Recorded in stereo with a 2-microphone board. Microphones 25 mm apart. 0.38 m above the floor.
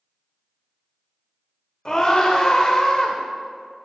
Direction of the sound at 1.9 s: 30° left (ahead or behind).